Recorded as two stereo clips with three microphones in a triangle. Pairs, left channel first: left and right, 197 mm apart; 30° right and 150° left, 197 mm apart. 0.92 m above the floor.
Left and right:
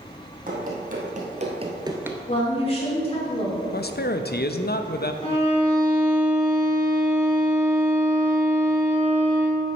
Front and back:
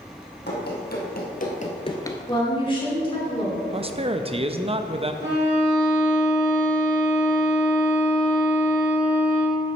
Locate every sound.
0.5 s running footsteps: 55° right, 2 m; by 2.2 s 30° right, 0.8 m
2.3 s a woman speaking: 30° left, 2.5 m
3.7 s a man speaking: 100° left, 0.5 m
5.2 s a violin: 140° left, 3 m